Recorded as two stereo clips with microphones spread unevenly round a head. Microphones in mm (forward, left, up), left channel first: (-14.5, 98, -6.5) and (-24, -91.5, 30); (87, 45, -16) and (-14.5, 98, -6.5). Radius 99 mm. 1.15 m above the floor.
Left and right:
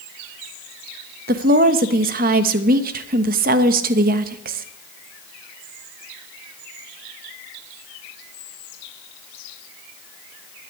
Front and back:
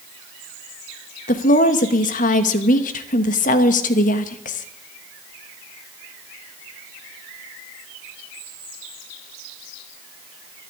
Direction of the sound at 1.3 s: 45° right.